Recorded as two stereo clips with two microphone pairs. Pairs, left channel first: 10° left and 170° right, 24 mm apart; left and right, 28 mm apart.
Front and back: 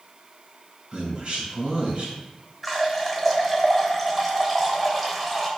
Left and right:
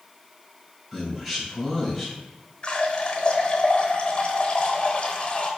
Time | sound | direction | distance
0.9 | a man speaking | 170° right | 2 m
2.6 | a running tap | 105° left | 0.9 m